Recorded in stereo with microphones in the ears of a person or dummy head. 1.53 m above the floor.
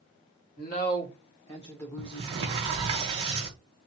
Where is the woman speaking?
50° left (ahead or behind), 1.7 m; by 2.3 s centre (ahead or behind), 1.4 m.